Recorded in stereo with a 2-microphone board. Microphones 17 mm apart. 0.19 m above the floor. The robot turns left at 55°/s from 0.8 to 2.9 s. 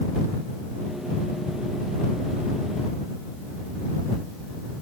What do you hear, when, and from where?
Only background noise.